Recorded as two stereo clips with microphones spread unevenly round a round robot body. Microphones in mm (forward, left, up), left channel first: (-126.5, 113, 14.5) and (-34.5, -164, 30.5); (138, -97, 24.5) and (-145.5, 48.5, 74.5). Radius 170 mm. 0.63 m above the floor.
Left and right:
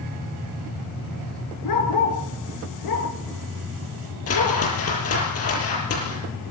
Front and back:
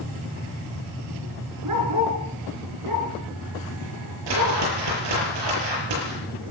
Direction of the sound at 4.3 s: 145° left.